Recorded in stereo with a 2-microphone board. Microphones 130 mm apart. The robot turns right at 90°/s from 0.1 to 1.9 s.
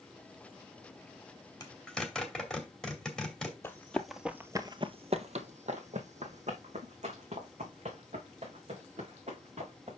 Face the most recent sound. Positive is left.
turn(degrees=-60)  # may be behind; listen again after turning